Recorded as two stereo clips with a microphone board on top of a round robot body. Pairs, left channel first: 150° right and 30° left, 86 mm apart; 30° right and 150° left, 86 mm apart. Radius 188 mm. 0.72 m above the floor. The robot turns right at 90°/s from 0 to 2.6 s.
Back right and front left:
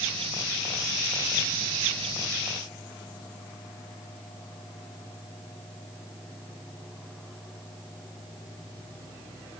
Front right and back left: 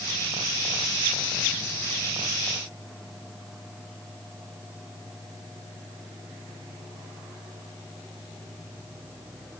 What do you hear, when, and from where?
Only background noise.